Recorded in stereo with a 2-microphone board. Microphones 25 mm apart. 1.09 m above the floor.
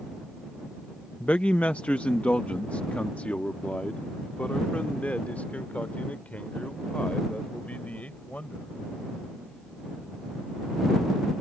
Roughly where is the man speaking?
Left.